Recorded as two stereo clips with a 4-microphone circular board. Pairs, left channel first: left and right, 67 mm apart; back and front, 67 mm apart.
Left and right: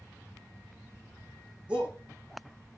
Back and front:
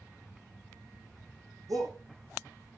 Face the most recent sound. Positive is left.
turn(degrees=-20)